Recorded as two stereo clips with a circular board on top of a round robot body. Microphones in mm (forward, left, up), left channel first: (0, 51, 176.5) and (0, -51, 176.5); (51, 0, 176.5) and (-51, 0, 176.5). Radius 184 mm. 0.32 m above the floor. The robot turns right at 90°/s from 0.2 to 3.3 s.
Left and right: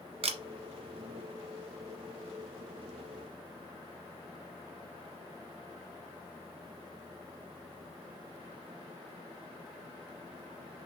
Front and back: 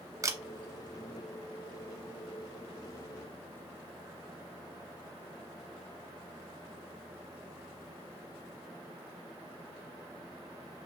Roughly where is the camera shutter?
Behind right.